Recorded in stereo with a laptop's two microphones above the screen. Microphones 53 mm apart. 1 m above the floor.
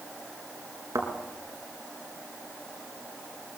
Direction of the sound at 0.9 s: 80° right.